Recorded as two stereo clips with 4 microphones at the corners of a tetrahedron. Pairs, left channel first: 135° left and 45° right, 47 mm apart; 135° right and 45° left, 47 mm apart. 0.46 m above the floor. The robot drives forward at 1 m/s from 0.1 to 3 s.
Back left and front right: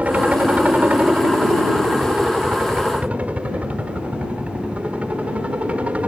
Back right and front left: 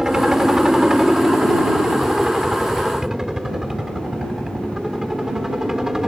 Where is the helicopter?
25° right.